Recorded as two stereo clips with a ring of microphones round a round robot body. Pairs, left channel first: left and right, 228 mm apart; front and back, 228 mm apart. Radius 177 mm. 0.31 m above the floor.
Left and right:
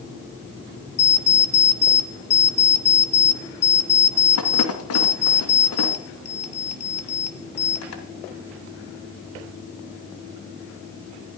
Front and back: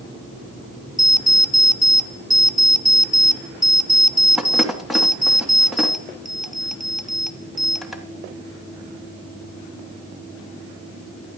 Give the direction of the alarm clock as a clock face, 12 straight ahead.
9 o'clock.